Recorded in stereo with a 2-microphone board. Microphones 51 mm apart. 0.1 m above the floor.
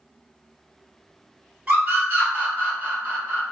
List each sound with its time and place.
1.7 s a scream: 25° right (ahead or behind), 2.0 m; by 3.4 s 35° right (ahead or behind), 3 m